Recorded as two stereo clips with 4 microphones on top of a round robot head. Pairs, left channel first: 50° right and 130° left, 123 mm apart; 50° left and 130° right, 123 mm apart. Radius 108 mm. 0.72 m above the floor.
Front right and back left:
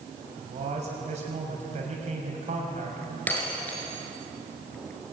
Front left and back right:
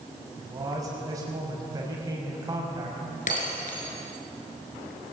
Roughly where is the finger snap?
No finger snap in this recording.